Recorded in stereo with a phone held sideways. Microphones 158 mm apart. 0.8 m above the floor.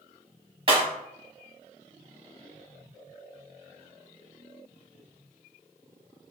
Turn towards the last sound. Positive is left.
turn(degrees=-35)  # may be behind; listen again after turning